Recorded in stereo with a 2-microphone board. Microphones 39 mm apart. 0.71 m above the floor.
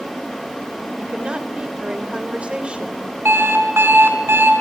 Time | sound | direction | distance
1.0 | a woman speaking | 30° right (ahead or behind) | 3 m
3.2 | an alarm clock | 85° right | 5 m